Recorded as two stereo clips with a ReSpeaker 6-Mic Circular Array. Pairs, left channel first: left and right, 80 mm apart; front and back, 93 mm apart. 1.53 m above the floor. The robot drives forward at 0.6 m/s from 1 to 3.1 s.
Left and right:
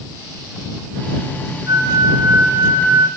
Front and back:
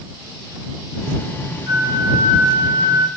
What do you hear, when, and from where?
1.7 s a flute: 135° right, 1.9 m; by 3.1 s 150° right, 2.5 m